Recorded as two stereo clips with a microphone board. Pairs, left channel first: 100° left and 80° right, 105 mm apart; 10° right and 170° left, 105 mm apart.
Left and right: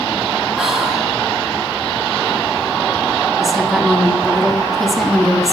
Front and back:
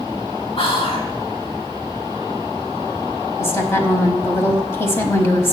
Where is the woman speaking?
5° left, 1.3 m.